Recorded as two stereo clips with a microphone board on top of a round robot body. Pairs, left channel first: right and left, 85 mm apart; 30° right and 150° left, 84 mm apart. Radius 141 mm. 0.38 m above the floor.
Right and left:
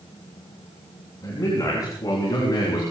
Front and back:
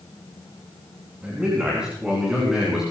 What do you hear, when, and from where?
1.2 s a man speaking: 135° right, 6 m; by 2.8 s 125° right, 7.5 m